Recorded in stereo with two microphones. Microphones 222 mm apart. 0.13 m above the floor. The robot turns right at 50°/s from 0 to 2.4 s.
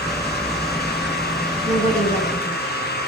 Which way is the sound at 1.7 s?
25° left (ahead or behind).